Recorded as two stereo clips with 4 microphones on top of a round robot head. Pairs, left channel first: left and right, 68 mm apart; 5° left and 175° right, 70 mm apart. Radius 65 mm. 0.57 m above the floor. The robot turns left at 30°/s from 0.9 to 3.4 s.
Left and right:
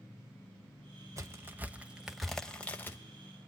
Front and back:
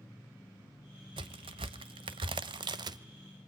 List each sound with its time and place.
1.2 s a crack: 150° right, 1.0 m; by 3.0 s 155° left, 1.0 m